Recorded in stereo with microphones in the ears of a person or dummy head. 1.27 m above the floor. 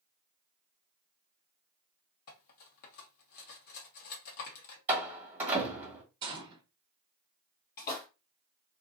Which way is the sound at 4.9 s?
10° right (ahead or behind).